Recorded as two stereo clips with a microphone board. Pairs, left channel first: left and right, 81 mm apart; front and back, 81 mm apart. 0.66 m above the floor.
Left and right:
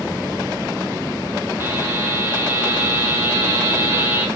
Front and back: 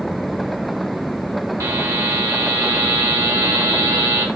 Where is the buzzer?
145° right, 1.5 m.